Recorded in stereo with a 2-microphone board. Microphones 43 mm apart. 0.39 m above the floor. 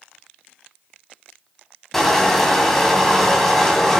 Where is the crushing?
5° left (ahead or behind), 1.6 m.